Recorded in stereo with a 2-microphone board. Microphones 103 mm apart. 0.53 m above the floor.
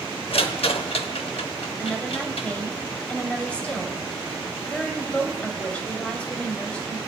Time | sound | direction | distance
0.3 | a rattle | 65° left (ahead or behind) | 0.8 m
1.8 | a woman speaking | 10° left (ahead or behind) | 2 m